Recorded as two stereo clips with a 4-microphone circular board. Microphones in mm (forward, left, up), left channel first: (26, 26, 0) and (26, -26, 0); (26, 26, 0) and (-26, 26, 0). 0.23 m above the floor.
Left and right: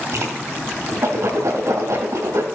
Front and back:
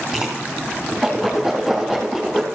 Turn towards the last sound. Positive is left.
turn(degrees=-85)